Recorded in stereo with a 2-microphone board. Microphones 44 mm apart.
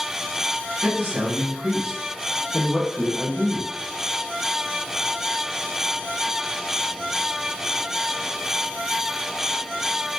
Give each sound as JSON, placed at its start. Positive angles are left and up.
{"t": 0.8, "sound": "a man speaking", "side_deg": -45, "distance_m": 1.5}